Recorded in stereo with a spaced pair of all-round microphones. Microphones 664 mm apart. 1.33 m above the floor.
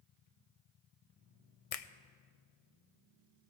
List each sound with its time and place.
1.7 s a finger snap: 60° left (ahead or behind), 0.6 m